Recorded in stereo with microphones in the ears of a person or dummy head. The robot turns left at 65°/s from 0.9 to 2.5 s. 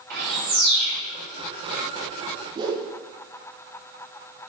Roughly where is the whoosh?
Centre.